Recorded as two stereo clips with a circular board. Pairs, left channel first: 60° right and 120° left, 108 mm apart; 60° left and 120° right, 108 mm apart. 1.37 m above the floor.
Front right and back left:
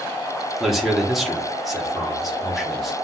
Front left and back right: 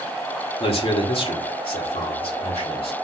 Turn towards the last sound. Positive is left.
turn(degrees=30)